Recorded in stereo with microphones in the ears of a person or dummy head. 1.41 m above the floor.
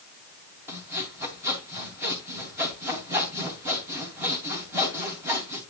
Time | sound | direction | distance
0.7 | sawing | 10° right (ahead or behind) | 3.5 m